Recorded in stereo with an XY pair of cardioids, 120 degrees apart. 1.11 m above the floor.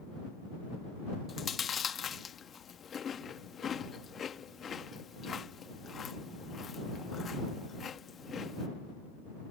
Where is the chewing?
35° left.